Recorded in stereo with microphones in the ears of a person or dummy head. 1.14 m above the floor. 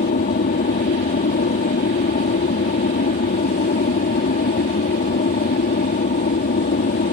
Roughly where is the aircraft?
Left.